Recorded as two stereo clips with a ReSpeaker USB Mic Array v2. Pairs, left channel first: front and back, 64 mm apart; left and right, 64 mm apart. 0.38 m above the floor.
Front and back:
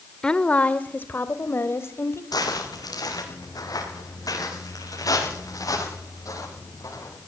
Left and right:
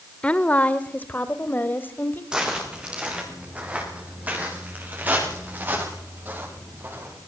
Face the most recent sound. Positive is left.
turn(degrees=-35)